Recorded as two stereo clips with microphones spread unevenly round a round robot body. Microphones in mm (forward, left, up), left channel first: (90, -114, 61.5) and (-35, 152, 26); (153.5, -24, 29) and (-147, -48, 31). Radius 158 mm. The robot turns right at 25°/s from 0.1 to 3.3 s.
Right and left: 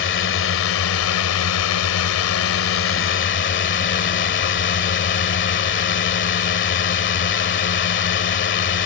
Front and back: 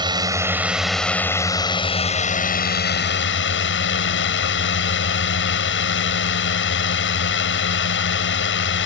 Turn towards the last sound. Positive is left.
turn(degrees=-25)